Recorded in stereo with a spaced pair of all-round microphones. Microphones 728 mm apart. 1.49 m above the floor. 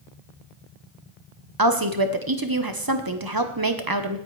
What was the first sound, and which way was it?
A woman speaking, 30° right (ahead or behind).